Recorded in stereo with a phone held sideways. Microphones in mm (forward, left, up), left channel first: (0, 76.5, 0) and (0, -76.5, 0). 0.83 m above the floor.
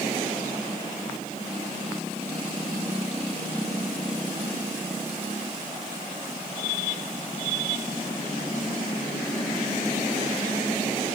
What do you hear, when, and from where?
Only background noise.